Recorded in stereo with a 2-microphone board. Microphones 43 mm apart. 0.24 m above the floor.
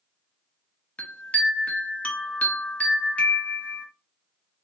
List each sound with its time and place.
1.0 s a chime: 35° left (ahead or behind), 0.6 m